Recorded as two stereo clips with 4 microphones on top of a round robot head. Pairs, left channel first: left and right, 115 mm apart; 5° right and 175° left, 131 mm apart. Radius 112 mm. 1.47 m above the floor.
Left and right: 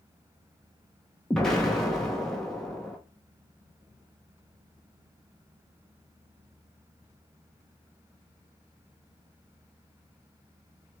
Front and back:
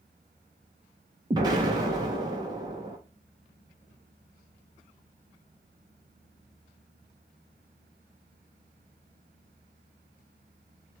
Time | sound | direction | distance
1.3 | an explosion | 170° left | 0.6 m